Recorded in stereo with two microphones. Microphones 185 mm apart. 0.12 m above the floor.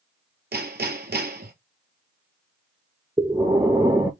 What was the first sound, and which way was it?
Hammering, 60° right (ahead or behind).